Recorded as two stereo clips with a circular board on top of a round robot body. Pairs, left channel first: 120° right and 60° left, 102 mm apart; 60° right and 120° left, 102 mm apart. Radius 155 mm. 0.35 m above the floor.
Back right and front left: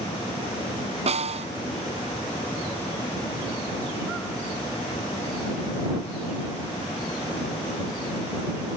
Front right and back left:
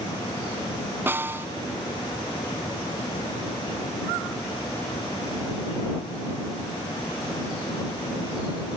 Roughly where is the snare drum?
Ahead left.